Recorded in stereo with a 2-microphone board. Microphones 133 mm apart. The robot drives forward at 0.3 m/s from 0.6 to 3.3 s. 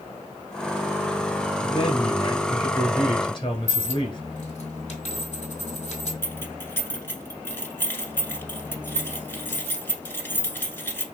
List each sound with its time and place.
1.6 s a man speaking: 35° left (ahead or behind), 1.5 m; by 4.2 s 40° left (ahead or behind), 1.3 m
3.7 s a dropped coin: 55° left (ahead or behind), 1.6 m
6.2 s keys jangling: 15° left (ahead or behind), 0.8 m